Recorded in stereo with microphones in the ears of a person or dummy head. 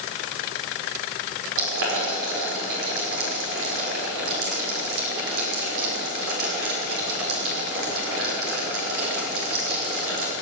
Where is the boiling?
80° right, 6 m.